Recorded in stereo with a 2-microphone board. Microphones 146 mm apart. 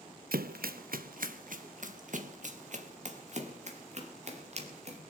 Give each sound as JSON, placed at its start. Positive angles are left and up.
{"t": 0.3, "sound": "running footsteps", "side_deg": -75, "distance_m": 0.5}